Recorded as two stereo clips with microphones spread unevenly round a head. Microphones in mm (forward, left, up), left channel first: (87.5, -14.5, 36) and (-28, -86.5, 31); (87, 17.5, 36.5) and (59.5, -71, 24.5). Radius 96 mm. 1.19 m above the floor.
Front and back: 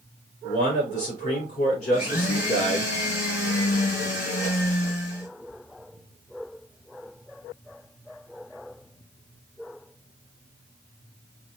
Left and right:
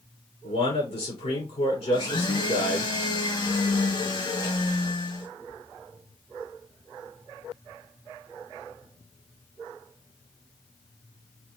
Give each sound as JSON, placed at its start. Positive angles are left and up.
{"t": 0.4, "sound": "a man speaking", "azimuth_deg": 75, "distance_m": 4.0}
{"t": 1.9, "sound": "a blender", "azimuth_deg": 50, "distance_m": 3.0}